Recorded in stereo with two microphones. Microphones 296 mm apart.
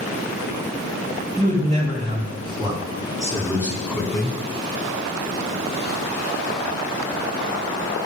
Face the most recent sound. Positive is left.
turn(degrees=0)  # may be behind; listen again after turning